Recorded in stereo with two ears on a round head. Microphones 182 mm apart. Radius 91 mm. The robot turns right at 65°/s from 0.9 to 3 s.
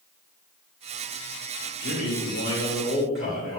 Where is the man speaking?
70° left, 2 m; by 3.6 s 150° left, 2 m.